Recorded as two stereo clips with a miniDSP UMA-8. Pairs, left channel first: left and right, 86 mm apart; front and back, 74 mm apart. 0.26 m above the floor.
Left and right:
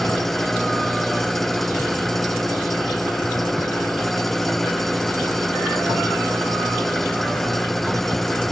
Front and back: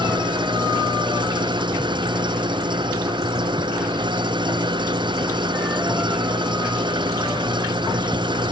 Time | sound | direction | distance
0.0 | an engine running | 175° left | ?